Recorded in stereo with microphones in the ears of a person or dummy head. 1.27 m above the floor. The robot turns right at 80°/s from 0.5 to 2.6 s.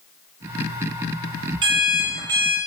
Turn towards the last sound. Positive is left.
turn(degrees=-60)